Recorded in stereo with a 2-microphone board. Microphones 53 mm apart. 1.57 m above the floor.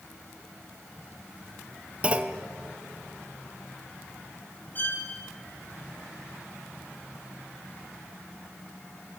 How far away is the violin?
About 6.5 m.